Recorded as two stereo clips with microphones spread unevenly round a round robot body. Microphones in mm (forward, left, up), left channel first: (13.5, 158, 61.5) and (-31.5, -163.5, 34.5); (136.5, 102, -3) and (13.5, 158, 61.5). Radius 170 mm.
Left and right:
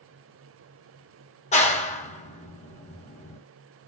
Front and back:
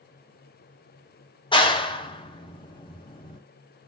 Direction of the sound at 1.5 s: 10° left.